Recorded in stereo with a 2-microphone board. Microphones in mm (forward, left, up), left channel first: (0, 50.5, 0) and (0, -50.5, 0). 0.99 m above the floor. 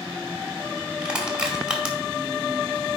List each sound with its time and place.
1.0 s crushing: 10° right (ahead or behind), 2 m